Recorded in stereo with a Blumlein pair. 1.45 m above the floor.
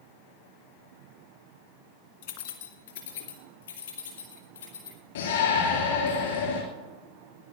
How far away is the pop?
No pop in this recording.